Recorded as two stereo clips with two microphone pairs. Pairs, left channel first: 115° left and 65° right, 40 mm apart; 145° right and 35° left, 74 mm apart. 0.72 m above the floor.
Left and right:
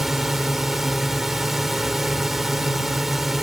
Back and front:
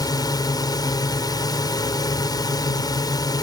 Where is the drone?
150° right.